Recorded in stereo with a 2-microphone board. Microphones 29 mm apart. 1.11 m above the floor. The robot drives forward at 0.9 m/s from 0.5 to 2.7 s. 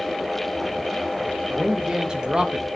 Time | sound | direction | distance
1.5 | a man speaking | 20° right (ahead or behind) | 1.8 m